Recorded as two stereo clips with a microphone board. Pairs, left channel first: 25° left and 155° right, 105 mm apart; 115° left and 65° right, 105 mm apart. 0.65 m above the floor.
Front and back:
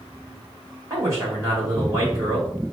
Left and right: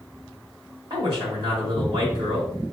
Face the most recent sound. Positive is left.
turn(degrees=-100)